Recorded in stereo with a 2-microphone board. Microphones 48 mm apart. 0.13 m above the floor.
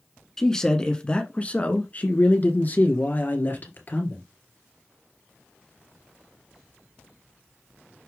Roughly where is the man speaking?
Centre.